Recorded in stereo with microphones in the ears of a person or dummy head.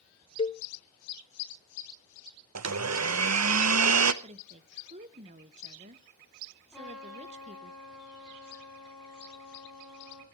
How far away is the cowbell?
About 0.7 m.